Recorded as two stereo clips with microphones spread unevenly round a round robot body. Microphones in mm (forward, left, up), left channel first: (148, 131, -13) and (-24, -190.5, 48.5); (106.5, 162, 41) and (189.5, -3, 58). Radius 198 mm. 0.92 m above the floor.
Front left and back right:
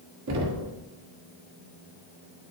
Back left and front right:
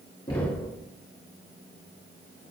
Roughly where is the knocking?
Behind.